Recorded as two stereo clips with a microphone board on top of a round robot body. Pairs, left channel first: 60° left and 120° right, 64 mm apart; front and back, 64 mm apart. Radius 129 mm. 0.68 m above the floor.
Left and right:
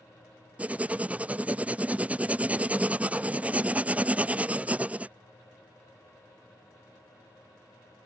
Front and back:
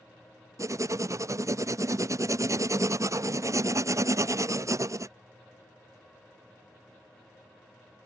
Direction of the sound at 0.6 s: 175° left.